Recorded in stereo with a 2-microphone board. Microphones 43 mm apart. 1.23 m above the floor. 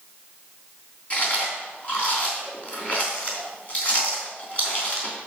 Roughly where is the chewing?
Left.